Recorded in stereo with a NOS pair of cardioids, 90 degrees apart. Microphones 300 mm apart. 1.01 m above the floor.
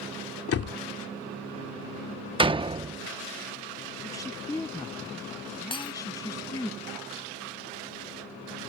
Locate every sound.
0.5 s a door slam: 50° left
2.4 s a door slam: 15° right
4.0 s a woman speaking: 10° left
5.7 s breaking glass: 15° left